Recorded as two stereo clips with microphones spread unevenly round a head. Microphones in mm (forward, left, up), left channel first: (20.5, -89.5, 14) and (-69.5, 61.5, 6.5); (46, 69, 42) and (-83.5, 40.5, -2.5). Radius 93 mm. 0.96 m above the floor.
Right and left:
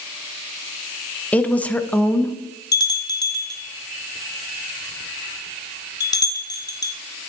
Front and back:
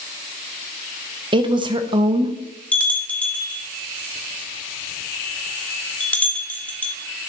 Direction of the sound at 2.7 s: 15° right.